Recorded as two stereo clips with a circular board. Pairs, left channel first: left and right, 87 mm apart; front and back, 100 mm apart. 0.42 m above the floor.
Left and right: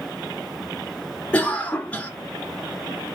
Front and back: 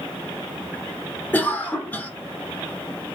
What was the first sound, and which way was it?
A cough, 35° left.